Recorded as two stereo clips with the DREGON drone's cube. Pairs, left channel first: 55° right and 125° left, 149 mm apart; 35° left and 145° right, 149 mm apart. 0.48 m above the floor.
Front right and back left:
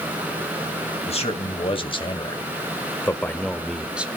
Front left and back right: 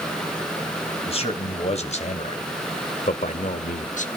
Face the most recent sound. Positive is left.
turn(degrees=45)